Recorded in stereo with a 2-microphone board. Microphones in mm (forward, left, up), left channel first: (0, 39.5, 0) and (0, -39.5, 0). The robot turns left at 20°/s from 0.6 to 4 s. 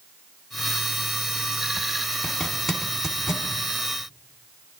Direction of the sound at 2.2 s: 10° left (ahead or behind).